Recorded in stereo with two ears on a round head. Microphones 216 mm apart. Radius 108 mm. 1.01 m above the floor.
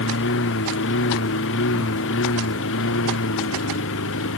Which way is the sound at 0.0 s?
55° left (ahead or behind).